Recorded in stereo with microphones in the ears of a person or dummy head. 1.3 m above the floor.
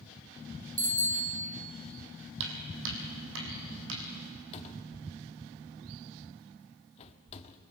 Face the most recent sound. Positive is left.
turn(degrees=35)  # may be behind; listen again after turning